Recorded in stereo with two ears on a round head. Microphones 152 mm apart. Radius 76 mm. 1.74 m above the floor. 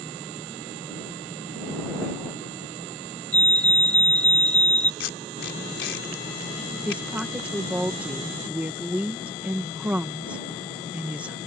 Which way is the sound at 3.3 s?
10° left (ahead or behind).